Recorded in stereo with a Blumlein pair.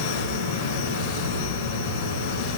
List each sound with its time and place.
0.0 s a fan: 70° right, 3 m